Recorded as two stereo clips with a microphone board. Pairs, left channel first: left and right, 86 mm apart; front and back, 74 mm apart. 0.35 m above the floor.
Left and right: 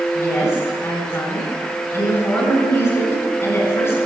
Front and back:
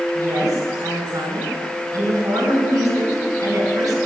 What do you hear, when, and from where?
0.1 s a woman speaking: 145° left, 3.5 m